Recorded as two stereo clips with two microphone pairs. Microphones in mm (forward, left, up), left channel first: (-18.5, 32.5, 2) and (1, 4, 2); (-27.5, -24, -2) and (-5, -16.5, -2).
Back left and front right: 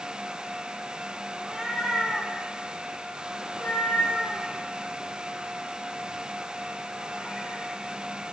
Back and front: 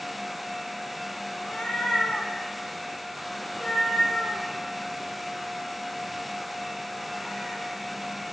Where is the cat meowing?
125° right, 1.4 m; by 7.6 s 105° left, 5 m.